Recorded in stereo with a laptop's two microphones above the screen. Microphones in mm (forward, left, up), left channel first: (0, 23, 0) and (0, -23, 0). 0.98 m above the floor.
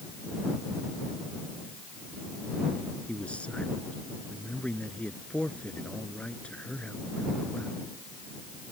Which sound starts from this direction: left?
A man speaking, at 3.1 s.